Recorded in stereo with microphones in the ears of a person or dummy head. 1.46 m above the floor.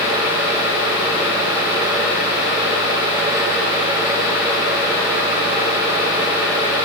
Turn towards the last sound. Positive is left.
No sound to turn to.